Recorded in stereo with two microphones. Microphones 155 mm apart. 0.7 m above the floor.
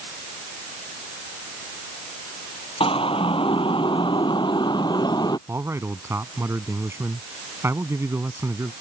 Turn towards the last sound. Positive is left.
turn(degrees=-15)  # may be behind; listen again after turning